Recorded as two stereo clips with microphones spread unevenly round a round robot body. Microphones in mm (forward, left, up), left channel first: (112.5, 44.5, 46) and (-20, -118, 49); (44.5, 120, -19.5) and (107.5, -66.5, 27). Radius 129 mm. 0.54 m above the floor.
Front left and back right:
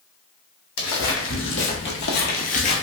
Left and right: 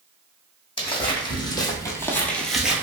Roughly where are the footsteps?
Ahead left.